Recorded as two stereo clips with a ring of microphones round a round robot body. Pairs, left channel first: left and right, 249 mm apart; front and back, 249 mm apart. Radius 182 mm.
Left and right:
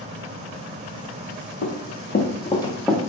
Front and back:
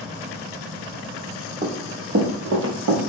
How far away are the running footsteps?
About 1.0 m.